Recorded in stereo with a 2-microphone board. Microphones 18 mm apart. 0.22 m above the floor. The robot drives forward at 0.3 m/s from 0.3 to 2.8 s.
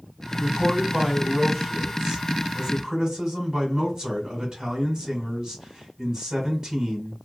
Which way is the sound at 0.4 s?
35° right (ahead or behind).